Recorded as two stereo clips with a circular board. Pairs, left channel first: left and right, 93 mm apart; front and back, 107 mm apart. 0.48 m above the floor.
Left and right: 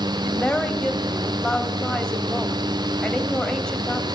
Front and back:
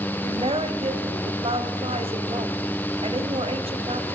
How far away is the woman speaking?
About 2.5 m.